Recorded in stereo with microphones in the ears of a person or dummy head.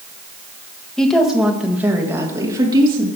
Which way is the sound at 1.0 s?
5° left (ahead or behind).